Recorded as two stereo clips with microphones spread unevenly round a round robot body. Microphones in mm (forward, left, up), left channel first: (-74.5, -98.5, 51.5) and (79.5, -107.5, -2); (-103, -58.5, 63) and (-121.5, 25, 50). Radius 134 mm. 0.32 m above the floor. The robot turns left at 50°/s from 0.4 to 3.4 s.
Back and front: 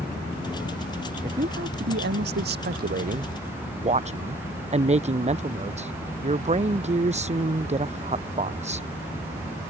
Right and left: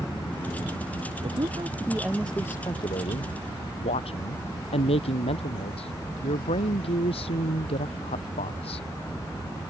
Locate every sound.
1.2 s a woman speaking: 60° left; by 8.9 s 45° right